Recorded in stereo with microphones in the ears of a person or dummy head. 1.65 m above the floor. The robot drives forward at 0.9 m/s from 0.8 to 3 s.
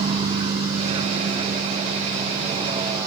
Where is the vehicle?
35° right (ahead or behind); by 3.1 s 20° right (ahead or behind).